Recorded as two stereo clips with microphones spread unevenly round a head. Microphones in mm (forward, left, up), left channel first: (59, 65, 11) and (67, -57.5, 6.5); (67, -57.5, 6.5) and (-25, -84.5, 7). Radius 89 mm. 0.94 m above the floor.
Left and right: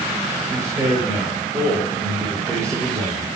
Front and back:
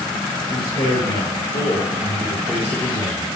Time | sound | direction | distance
0.5 | a man speaking | 25° right | 4 m